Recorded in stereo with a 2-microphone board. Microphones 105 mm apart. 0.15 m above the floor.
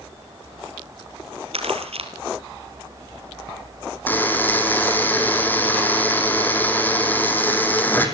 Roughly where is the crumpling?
Right.